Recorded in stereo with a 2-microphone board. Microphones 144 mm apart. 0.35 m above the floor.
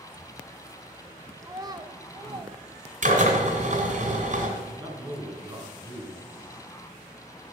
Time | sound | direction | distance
1.4 | a child speaking | 20° right (ahead or behind) | 0.6 m
3.0 | a drill | 60° right (ahead or behind) | 2.5 m
4.6 | a man speaking | 30° right (ahead or behind) | 3.5 m